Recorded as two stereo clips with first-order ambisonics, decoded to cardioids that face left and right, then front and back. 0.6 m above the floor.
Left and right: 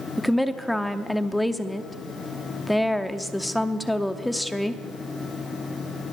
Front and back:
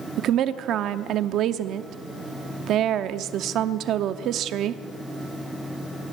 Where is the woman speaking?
Straight behind, 0.7 m.